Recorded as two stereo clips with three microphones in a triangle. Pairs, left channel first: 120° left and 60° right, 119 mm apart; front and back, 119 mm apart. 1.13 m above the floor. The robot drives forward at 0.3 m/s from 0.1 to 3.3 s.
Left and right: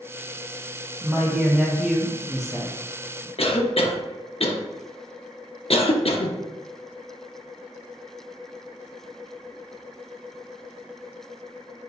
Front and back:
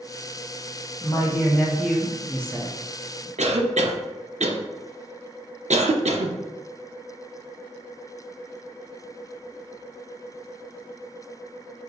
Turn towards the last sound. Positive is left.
turn(degrees=155)